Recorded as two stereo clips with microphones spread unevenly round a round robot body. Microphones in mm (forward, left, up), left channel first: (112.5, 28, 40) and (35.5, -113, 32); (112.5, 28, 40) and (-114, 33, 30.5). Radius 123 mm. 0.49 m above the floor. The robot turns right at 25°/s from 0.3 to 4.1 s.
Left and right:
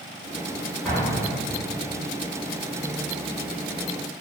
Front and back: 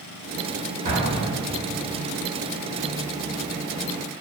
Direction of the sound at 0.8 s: 145° left.